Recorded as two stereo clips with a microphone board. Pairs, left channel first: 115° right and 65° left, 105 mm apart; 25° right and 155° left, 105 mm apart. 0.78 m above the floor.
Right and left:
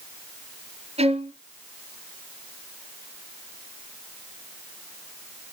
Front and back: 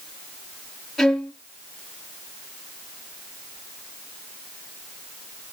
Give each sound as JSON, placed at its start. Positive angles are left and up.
{"t": 1.0, "sound": "a violin", "azimuth_deg": 65, "distance_m": 2.5}